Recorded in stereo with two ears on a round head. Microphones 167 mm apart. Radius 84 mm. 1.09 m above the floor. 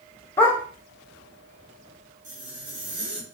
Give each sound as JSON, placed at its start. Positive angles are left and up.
{"t": 0.4, "sound": "a dog barking", "side_deg": 15, "distance_m": 1.1}
{"t": 2.2, "sound": "a zipper", "side_deg": -40, "distance_m": 2.5}